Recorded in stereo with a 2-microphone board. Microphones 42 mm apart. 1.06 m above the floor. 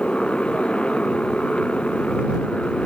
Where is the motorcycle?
25° left (ahead or behind).